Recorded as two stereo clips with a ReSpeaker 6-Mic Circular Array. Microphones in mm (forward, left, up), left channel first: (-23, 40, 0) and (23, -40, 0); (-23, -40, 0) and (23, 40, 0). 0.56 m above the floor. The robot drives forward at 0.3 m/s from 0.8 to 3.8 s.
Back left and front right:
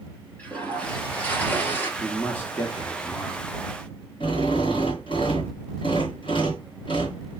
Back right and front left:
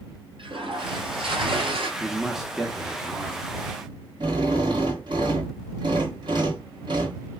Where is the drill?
95° left, 2.5 m.